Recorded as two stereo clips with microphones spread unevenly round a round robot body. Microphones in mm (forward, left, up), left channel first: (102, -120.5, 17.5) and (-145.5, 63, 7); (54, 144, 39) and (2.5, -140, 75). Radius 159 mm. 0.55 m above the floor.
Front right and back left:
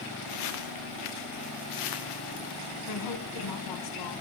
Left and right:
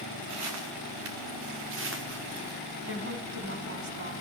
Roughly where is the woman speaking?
Ahead right.